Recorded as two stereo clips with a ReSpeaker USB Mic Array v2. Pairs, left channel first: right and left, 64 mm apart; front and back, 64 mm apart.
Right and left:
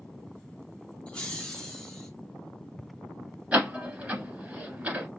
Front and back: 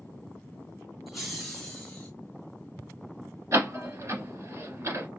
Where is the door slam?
155° left, 1.4 m.